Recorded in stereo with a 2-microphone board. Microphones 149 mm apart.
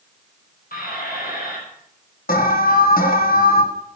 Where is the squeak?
75° left (ahead or behind), 6.5 m.